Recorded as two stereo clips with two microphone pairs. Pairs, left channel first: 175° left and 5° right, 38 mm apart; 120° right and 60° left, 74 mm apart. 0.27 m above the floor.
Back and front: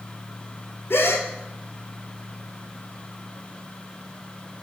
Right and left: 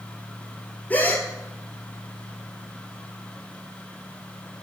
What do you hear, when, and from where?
0.9 s a gasp: 175° left, 0.8 m